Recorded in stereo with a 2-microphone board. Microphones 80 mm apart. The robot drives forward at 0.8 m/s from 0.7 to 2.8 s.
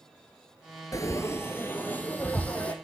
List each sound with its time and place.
0.9 s frying: 45° left (ahead or behind), 0.8 m; by 2.7 s 15° left (ahead or behind), 2 m